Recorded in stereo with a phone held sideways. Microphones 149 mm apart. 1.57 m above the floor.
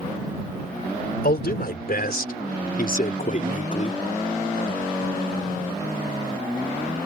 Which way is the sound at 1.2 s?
75° left (ahead or behind).